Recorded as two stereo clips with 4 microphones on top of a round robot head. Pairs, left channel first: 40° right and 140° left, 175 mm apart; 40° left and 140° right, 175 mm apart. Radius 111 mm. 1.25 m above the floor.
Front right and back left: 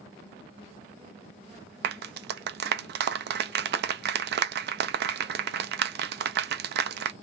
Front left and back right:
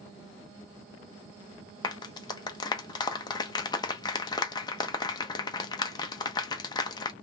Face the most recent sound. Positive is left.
turn(degrees=110)